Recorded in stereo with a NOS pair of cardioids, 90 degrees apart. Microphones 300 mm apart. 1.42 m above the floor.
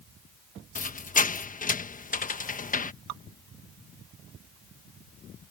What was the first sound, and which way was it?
A squeak, 25° left.